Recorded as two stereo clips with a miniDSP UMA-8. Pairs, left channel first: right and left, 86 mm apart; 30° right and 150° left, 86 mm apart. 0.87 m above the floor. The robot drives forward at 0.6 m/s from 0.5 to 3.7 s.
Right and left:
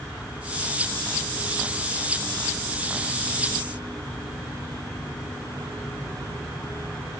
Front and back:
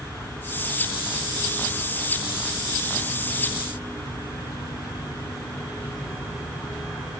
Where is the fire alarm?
No fire alarm in this recording.